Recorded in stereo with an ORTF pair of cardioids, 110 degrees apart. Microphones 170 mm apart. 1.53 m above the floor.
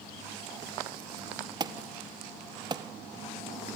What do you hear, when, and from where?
1.6 s an alarm: 25° right, 1.5 m